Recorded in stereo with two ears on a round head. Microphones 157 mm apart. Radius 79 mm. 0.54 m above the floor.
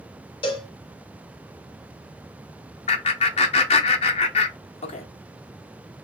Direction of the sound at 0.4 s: 30° left (ahead or behind).